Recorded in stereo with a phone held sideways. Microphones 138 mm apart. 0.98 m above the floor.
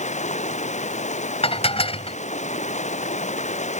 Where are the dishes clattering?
45° left (ahead or behind).